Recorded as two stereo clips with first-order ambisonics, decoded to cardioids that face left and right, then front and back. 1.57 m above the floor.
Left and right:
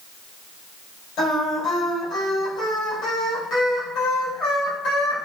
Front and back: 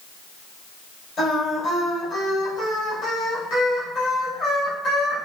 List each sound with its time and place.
1.2 s singing: 50° left, 1.9 m